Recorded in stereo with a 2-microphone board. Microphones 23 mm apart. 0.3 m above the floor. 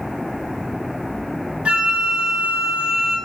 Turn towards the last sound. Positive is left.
turn(degrees=-55)  # may be behind; listen again after turning